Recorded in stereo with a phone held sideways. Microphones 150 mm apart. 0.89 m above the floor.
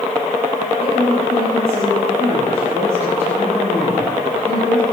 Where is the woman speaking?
20° right (ahead or behind), 7 m.